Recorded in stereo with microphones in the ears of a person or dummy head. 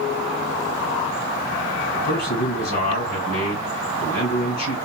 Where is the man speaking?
60° left (ahead or behind), 2.5 m.